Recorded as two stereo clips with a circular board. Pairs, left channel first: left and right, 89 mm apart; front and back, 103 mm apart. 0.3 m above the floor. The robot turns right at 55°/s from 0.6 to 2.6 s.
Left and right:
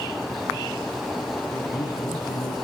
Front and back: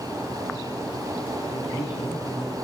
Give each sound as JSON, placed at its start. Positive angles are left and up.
{"t": 1.5, "sound": "a man speaking", "azimuth_deg": 30, "distance_m": 3.5}